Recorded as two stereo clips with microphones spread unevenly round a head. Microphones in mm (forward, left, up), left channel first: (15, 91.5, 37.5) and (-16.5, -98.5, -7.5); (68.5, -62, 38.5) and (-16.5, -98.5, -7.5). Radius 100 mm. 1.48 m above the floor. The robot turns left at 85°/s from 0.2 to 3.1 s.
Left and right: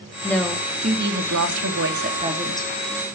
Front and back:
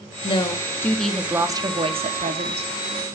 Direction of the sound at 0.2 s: 5° left.